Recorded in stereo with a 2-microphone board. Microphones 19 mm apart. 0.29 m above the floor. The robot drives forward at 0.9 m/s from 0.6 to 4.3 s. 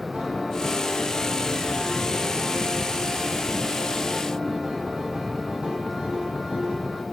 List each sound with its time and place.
0.1 s a piano: 75° right (ahead or behind), 5.5 m; by 7.0 s 70° right (ahead or behind), 6 m